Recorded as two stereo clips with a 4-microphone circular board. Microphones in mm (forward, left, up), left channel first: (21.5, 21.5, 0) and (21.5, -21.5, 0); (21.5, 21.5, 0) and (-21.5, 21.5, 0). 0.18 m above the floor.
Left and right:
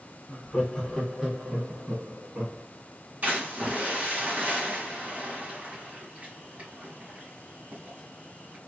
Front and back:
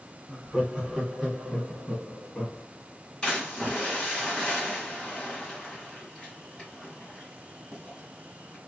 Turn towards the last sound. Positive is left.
turn(degrees=-65)